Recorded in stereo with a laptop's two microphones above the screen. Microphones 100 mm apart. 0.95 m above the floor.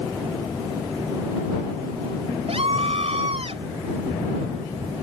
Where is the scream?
80° right.